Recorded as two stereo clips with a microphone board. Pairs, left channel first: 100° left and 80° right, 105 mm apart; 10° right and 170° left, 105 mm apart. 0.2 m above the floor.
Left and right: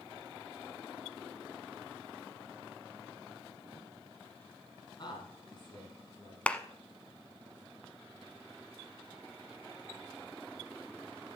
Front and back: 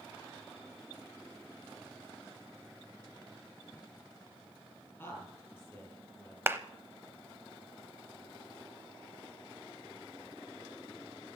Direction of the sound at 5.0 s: 60° left.